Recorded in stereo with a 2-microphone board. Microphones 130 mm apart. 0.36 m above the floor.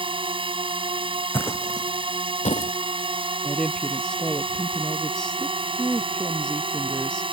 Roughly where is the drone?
Right.